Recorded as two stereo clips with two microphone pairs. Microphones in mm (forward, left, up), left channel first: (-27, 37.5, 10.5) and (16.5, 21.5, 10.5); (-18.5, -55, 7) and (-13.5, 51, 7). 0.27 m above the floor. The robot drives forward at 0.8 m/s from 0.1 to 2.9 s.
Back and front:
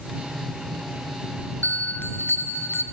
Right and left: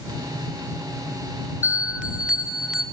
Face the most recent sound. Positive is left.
turn(degrees=170)